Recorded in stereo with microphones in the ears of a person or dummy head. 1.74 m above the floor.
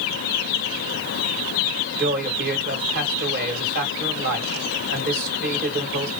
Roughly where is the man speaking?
Right.